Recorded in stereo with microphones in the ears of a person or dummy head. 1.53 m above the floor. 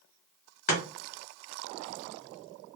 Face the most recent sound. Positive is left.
turn(degrees=40)  # may be behind; listen again after turning